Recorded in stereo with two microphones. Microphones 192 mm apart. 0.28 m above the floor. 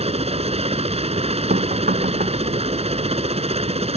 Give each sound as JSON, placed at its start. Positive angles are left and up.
{"t": 0.0, "sound": "a helicopter", "side_deg": -30}
{"t": 1.5, "sound": "knocking", "side_deg": -50}